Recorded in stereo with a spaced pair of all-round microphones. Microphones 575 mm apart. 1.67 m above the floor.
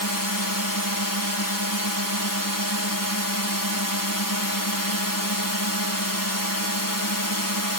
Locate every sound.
0.0 s a drone: 30° left (ahead or behind)